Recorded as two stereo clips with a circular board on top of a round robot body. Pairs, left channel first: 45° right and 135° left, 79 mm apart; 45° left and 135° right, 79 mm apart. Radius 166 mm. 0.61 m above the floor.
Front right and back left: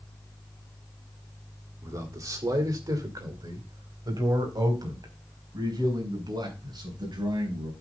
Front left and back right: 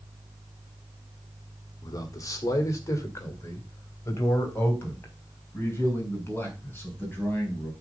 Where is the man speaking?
90° left, 2.0 m; by 7.7 s 110° left, 5.5 m.